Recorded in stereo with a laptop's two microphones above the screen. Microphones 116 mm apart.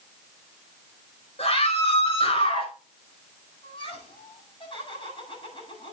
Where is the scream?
65° left (ahead or behind), 5.5 m; by 2.7 s 50° left (ahead or behind), 6 m.